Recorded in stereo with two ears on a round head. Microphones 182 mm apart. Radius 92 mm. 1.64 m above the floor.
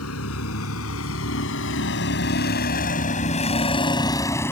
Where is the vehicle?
85° left; by 4.5 s 10° left (ahead or behind).